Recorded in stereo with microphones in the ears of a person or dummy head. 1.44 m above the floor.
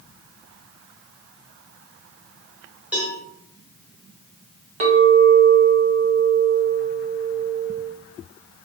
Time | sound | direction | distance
2.9 | a cowbell | 5° right (ahead or behind) | 1.2 m
4.8 | a clink | 40° right (ahead or behind) | 0.8 m